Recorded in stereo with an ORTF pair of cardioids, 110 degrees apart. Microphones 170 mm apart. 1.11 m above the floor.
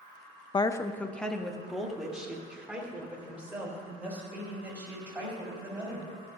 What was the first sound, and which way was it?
A woman speaking, 30° left.